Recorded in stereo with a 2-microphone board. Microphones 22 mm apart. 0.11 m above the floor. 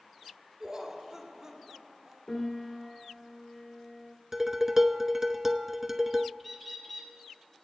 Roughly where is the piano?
Left.